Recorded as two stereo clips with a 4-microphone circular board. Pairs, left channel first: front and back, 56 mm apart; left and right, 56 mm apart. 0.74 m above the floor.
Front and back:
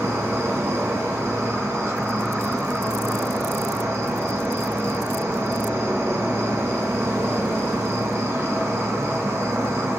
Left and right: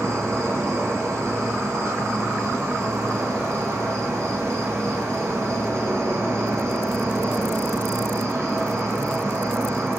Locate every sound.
0.0 s an insect: 135° right, 4.5 m